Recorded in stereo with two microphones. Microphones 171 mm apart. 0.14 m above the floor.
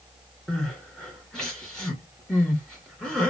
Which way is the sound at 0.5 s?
5° left (ahead or behind).